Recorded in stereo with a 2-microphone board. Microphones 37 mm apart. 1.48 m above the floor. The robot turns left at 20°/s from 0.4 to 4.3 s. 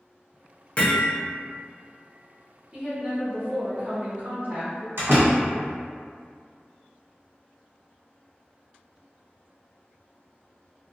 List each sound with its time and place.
0.8 s hammering: 30° left (ahead or behind), 0.8 m; by 1.1 s 35° left (ahead or behind), 0.8 m
2.7 s a woman speaking: 15° right, 0.8 m; by 4.9 s 45° right, 0.8 m
5.0 s a door slam: 65° right (ahead or behind), 1.4 m